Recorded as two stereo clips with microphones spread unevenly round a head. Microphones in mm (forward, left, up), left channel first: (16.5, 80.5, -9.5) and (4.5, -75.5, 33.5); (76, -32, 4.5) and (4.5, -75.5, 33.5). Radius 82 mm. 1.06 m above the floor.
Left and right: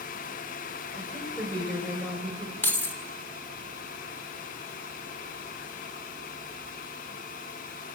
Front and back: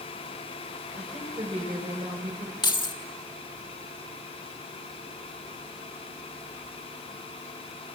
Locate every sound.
0.9 s a woman speaking: 170° left, 5.5 m
2.6 s keys jangling: 5° left, 1.9 m